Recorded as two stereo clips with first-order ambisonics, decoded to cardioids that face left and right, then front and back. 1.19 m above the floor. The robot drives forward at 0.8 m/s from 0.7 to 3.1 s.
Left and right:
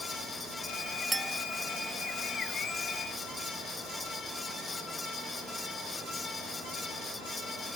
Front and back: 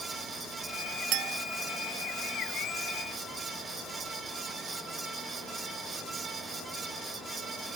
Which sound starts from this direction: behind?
A clink, at 1.1 s.